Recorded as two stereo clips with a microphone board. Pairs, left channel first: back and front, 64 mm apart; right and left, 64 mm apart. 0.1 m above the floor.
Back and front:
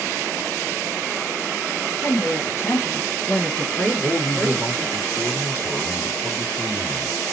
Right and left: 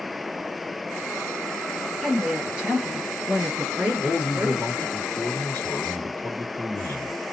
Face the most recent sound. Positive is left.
turn(degrees=-145)